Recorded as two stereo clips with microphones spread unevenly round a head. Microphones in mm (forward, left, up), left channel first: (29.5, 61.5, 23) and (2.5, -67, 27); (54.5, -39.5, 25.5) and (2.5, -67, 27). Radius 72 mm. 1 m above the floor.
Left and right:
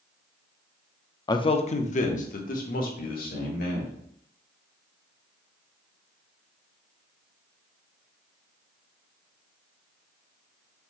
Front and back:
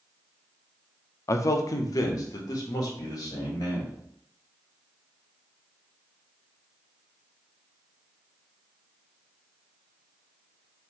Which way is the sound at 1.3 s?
25° left.